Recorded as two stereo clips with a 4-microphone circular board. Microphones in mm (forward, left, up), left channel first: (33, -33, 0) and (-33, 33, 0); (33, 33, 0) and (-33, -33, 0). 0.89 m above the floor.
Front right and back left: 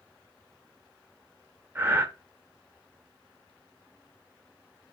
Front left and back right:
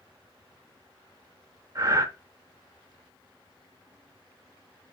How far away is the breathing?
About 0.7 m.